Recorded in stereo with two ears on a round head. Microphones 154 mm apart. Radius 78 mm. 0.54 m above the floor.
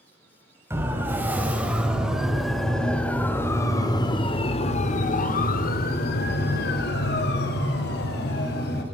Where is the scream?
I don't hear a scream.